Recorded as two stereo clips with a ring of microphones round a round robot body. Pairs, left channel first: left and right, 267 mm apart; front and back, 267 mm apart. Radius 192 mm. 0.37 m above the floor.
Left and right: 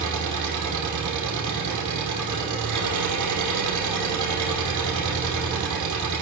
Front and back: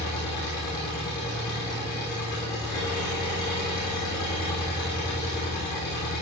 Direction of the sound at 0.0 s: 80° right.